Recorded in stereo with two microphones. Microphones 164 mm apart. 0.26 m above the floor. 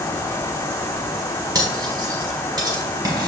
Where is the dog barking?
No dog barking in this recording.